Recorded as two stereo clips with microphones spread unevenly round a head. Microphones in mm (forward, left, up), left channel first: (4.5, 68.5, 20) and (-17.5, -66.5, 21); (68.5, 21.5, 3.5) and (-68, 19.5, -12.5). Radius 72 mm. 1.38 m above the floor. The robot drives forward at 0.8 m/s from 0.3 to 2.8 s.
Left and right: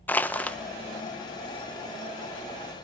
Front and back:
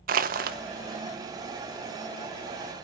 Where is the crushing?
160° left, 1.1 m; by 0.6 s 165° left, 1.3 m.